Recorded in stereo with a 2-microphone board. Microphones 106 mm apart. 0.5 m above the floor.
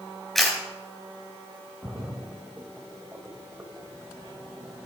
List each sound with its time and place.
0.3 s a camera shutter: centre (ahead or behind), 4 m
1.8 s a splash: 15° right (ahead or behind), 1.2 m